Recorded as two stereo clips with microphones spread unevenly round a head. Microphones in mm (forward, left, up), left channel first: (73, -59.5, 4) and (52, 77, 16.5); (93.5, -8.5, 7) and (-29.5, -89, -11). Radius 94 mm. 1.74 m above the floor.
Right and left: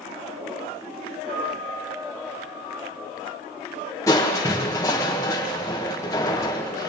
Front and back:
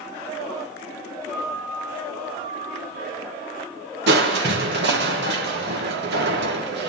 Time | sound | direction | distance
1.3 | a piano | 135° left | 9.5 m
4.1 | crushing | 160° right | 1.6 m